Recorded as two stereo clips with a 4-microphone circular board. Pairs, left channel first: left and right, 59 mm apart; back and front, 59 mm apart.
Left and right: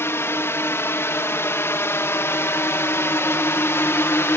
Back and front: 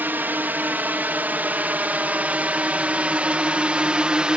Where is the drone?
55° left; by 4.4 s 70° left.